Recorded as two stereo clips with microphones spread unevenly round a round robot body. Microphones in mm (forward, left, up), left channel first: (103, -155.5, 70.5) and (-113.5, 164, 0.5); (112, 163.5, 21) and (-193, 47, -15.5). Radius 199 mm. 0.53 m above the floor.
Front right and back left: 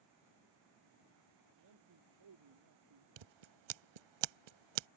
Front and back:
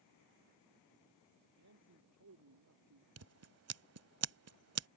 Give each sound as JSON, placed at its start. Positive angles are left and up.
{"t": 1.6, "sound": "a man speaking", "azimuth_deg": 165}
{"t": 3.2, "sound": "scissors", "azimuth_deg": 150}